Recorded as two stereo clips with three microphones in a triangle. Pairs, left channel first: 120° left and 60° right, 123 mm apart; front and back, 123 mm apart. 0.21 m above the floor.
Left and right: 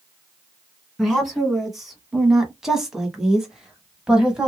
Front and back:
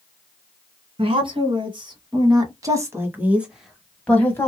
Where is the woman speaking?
150° right, 2 m; by 4.5 s 15° left, 1.2 m.